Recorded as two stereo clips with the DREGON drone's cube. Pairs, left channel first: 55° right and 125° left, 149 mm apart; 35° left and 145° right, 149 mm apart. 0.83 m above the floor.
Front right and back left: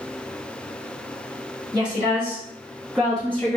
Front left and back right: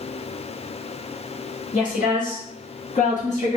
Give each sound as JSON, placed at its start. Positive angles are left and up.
{"t": 1.7, "sound": "a woman speaking", "azimuth_deg": 60, "distance_m": 2.0}